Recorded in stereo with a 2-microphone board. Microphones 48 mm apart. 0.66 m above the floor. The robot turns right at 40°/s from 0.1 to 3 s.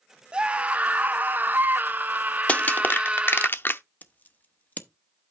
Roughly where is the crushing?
Left.